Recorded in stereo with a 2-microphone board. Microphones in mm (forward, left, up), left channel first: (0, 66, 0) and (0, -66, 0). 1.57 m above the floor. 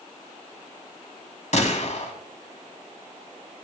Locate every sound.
1.5 s a gunshot: 60° left (ahead or behind), 2.5 m